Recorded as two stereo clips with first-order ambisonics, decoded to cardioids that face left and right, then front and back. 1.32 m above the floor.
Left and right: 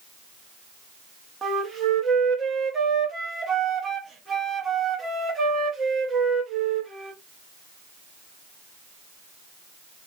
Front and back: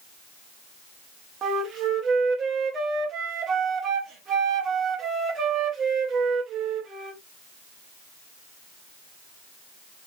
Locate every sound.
1.4 s a flute: 155° right, 0.8 m